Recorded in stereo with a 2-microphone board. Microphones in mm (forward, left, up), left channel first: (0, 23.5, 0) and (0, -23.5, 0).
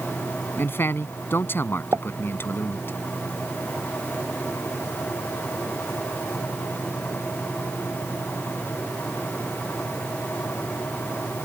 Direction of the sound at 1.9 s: 75° right (ahead or behind).